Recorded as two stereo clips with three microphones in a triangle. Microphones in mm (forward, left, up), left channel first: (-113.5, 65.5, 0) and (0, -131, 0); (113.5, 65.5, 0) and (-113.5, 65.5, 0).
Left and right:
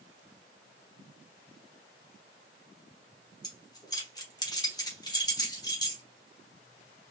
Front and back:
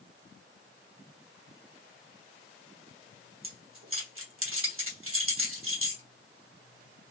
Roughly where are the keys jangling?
Behind.